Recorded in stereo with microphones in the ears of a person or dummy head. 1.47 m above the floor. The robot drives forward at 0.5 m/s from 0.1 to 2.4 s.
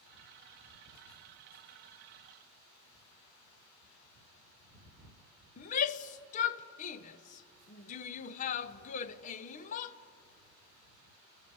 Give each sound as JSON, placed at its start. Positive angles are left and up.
{"t": 5.6, "sound": "a shout", "side_deg": 40, "distance_m": 0.8}